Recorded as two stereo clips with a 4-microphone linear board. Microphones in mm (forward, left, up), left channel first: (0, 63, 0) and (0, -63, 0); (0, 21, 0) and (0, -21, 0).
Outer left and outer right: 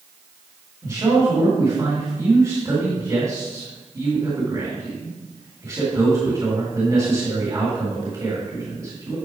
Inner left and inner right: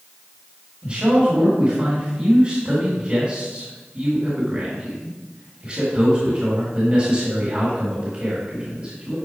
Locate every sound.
0.8 s a man speaking: 30° right (ahead or behind), 2 m